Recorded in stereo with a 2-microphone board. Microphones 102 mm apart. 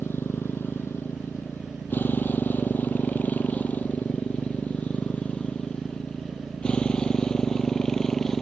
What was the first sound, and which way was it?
A motorcycle, 20° left (ahead or behind).